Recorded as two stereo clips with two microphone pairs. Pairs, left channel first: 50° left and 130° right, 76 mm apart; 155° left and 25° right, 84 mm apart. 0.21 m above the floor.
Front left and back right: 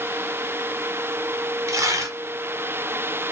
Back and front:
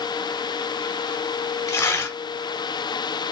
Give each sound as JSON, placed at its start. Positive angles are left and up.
{"t": 1.7, "sound": "tearing paper", "azimuth_deg": -160, "distance_m": 0.7}